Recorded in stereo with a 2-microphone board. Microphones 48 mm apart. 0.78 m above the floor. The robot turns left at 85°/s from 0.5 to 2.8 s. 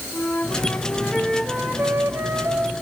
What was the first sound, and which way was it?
A flute, 55° left.